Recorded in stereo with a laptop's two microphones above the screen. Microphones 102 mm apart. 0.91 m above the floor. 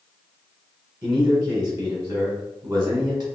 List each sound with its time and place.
1.0 s a man speaking: 30° right (ahead or behind), 0.9 m